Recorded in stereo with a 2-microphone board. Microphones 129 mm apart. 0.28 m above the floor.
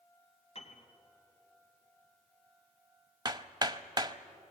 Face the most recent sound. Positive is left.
turn(degrees=-30)  # may be behind; listen again after turning